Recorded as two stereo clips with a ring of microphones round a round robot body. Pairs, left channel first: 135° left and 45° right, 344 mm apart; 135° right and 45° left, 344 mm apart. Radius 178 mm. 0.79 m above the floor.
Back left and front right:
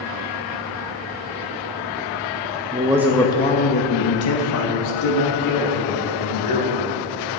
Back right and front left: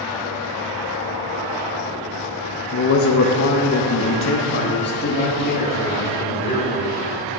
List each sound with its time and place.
2.7 s a man speaking: 105° right, 0.7 m; by 6.9 s 160° left, 2.5 m